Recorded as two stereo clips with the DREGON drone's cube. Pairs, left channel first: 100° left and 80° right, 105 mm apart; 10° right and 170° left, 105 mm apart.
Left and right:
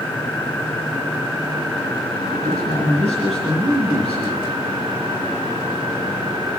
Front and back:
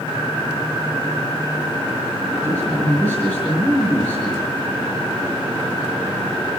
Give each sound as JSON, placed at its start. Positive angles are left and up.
{"t": 2.3, "sound": "a man speaking", "azimuth_deg": -85, "distance_m": 6.5}